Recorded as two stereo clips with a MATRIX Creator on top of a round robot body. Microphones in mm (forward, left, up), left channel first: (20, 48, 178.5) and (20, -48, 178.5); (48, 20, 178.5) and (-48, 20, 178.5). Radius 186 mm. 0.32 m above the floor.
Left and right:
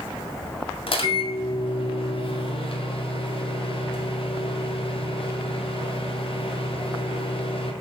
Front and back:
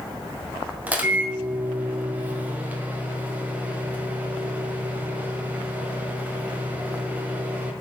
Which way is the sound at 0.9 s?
105° left.